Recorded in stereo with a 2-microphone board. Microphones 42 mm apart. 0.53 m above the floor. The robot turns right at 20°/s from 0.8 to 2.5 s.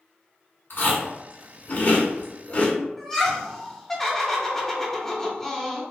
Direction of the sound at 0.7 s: 55° left (ahead or behind).